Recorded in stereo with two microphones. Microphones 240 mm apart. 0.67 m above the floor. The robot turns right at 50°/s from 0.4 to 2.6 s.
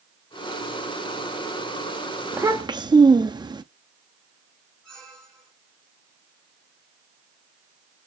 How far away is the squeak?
About 5 m.